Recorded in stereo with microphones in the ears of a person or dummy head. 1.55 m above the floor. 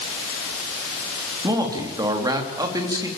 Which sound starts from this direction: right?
A man speaking, at 1.4 s.